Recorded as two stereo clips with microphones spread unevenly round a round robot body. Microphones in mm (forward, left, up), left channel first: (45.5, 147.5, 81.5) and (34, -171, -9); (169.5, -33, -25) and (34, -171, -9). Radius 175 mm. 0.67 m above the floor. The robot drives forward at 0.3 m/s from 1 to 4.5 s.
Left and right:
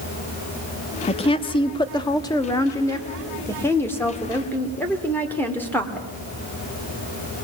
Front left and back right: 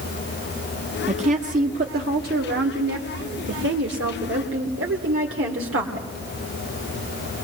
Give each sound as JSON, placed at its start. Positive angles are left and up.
{"t": 1.1, "sound": "a woman speaking", "azimuth_deg": 170, "distance_m": 0.6}